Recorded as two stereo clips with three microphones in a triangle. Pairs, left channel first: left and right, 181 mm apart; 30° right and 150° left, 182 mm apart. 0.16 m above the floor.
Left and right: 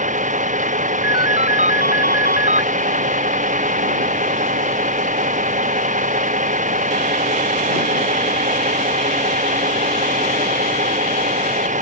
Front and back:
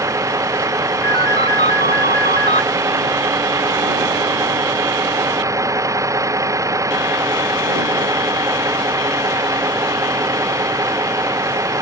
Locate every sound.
0.0 s a vehicle: 135° right
1.0 s a ringtone: 120° left